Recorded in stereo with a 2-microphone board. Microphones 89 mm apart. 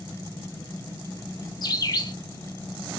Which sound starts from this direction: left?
A bird, at 1.6 s.